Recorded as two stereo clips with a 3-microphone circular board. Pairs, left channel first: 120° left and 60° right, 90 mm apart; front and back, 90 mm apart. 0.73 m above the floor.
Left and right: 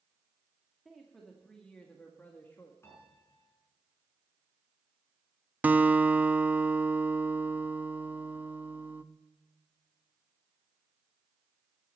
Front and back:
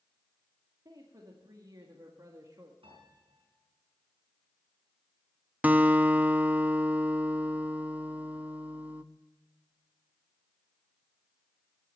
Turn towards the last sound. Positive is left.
turn(degrees=-120)